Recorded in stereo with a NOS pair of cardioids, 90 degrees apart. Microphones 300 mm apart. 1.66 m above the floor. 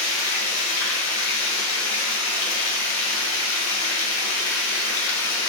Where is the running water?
65° left, 0.7 m.